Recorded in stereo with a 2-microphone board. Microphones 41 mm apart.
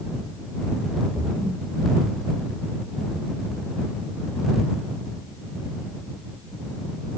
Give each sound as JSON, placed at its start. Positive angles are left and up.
{"t": 1.2, "sound": "a splash", "side_deg": -25}